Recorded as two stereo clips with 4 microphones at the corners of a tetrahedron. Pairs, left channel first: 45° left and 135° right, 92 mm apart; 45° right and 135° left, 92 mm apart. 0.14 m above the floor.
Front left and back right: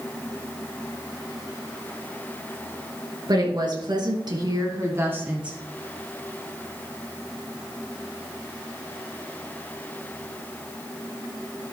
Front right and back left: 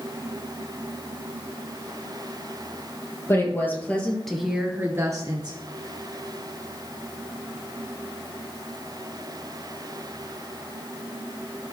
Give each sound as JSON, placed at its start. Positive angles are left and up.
{"t": 3.3, "sound": "a woman speaking", "azimuth_deg": -105, "distance_m": 3.0}